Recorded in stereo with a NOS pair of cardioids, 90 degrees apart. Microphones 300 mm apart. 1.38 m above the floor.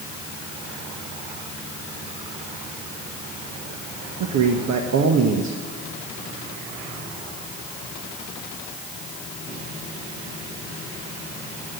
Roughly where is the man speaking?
Ahead right.